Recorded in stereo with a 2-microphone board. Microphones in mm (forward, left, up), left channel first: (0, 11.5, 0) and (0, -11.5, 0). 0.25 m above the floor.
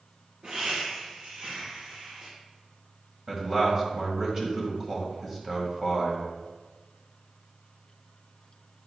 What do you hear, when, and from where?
0.4 s laughter: 55° right (ahead or behind), 3 m
3.3 s a man speaking: 25° right (ahead or behind), 1.6 m